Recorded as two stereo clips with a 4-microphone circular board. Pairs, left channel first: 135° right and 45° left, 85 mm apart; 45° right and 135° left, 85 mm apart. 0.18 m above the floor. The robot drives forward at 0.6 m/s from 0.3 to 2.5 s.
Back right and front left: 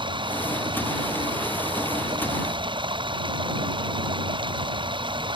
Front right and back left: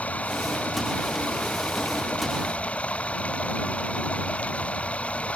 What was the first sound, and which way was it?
Running water, 30° left.